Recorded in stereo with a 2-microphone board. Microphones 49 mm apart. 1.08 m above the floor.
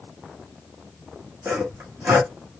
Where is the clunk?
I don't hear a clunk.